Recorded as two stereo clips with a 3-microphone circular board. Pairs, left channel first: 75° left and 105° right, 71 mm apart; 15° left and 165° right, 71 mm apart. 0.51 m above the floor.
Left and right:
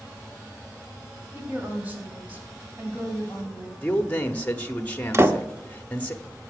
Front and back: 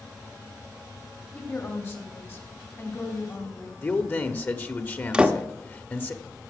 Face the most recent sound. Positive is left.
turn(degrees=-100)